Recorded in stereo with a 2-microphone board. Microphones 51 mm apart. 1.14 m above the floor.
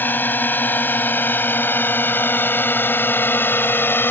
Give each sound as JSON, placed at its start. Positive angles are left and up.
{"t": 0.0, "sound": "a drone", "side_deg": 40}